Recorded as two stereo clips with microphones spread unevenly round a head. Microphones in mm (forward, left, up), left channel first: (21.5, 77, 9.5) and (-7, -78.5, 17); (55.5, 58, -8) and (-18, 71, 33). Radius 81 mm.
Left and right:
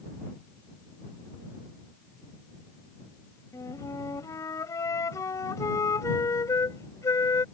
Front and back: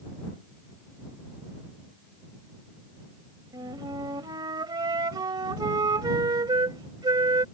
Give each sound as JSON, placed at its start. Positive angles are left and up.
{"t": 3.5, "sound": "a flute", "azimuth_deg": 155}